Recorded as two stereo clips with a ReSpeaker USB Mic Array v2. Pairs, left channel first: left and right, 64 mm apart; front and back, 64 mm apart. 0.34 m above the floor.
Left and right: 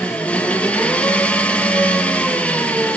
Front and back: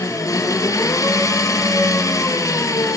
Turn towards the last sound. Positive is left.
turn(degrees=25)